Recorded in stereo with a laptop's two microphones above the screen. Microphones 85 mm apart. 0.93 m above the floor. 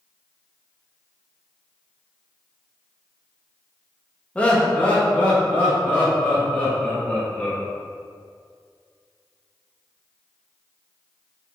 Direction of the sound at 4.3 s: 15° left (ahead or behind).